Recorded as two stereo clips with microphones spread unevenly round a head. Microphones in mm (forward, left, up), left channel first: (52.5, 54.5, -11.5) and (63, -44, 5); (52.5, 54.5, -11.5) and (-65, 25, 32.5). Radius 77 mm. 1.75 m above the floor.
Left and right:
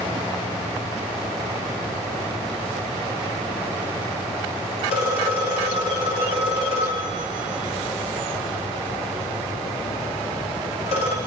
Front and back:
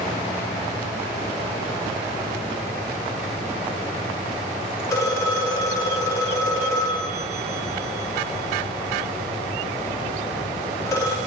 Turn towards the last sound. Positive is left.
turn(degrees=85)